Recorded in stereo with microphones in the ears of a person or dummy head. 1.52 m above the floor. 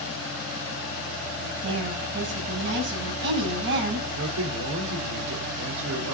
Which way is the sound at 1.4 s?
70° right (ahead or behind).